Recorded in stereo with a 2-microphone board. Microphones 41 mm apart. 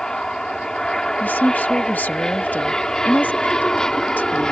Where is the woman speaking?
45° left (ahead or behind).